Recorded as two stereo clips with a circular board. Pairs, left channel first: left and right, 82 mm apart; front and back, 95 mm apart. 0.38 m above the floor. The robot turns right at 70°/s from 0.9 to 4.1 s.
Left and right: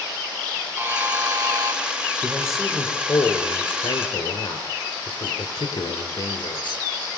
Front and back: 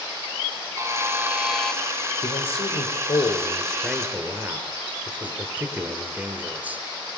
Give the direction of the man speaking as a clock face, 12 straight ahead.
1 o'clock.